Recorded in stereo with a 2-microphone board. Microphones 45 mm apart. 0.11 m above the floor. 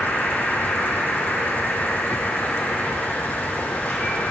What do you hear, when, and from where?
0.0 s an insect: 45° left (ahead or behind), 1.1 m